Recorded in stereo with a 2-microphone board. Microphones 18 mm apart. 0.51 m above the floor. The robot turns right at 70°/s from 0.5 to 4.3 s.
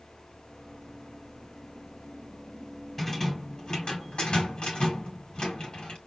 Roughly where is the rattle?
Ahead.